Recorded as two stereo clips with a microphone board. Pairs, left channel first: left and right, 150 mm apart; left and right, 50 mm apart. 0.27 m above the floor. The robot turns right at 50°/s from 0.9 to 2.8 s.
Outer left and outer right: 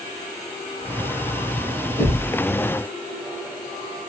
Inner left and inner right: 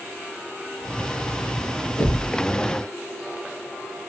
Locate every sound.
2.0 s knocking: 10° left (ahead or behind), 2.5 m; by 2.3 s 25° left (ahead or behind), 2.5 m